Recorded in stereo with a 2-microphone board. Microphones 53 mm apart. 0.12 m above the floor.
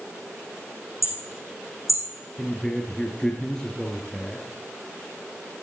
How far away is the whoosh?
I don't hear a whoosh.